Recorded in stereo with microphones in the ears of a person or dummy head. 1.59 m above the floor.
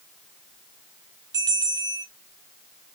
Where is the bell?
15° right (ahead or behind), 0.6 m.